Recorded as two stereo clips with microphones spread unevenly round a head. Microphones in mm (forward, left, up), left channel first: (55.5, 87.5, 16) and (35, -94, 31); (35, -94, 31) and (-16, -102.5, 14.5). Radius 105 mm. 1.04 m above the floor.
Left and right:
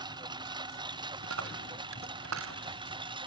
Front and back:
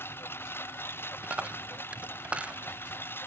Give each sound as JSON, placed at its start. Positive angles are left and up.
{"t": 0.0, "sound": "a lawn mower", "azimuth_deg": -30}
{"t": 1.2, "sound": "a dropped coin", "azimuth_deg": -100}